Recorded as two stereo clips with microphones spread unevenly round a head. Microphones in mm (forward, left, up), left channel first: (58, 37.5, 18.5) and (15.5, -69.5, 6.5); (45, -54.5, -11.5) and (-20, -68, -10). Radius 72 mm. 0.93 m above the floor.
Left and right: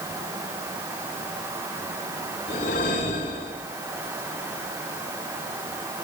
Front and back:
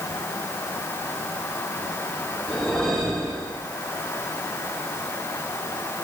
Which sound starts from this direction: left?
A whoosh, at 2.5 s.